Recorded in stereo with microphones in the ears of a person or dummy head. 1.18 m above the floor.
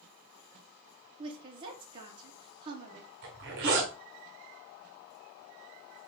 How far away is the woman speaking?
About 0.8 m.